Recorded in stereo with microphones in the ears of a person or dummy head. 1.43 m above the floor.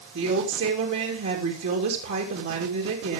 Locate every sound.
0.1 s a woman speaking: 65° right (ahead or behind), 3 m